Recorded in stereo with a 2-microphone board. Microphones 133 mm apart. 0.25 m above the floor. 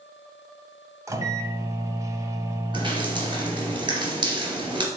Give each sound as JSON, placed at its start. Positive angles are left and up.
{"t": 1.1, "sound": "a microwave", "side_deg": -25, "distance_m": 0.9}
{"t": 2.7, "sound": "dripping", "side_deg": -35, "distance_m": 2.5}